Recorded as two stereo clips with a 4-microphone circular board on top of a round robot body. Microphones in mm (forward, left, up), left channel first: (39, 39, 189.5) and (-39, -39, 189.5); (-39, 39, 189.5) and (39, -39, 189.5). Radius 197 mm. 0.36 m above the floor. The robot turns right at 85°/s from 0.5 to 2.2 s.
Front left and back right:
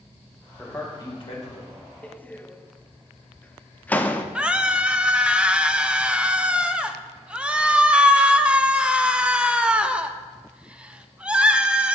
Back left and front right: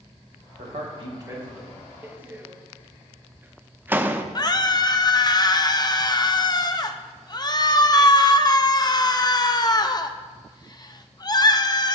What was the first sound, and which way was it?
A man speaking, 40° right.